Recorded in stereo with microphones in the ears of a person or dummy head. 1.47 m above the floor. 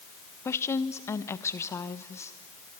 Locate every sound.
0.5 s a woman speaking: 15° left (ahead or behind), 1.2 m